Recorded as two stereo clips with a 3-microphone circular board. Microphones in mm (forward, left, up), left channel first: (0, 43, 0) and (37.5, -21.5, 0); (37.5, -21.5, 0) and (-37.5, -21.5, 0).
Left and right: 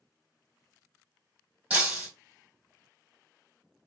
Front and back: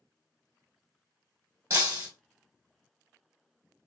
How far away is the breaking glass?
About 2.5 m.